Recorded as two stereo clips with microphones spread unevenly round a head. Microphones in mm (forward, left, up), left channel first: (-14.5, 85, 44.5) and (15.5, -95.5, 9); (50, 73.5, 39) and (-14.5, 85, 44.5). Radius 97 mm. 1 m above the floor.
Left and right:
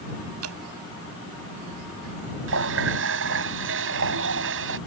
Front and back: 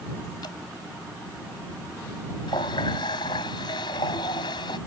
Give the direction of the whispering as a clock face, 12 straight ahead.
I don't hear whispering.